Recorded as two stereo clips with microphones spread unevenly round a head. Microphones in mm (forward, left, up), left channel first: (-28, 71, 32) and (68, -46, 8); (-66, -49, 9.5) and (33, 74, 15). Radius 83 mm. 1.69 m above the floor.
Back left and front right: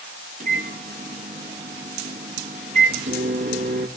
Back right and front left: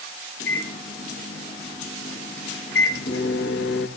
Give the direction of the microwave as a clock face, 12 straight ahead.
3 o'clock.